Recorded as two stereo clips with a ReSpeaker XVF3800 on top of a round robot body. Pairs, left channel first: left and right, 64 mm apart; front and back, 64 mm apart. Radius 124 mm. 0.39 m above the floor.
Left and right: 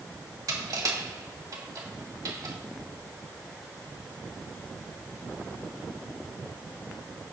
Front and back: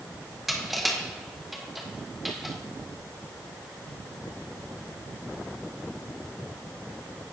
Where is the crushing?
90° right, 2.5 m.